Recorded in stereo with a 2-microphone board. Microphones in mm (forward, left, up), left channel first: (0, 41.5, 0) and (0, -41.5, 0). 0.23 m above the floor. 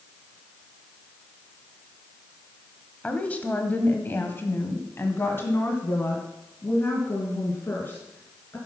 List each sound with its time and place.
3.0 s a woman speaking: 15° left (ahead or behind), 1.2 m; by 8.6 s 25° left (ahead or behind), 3 m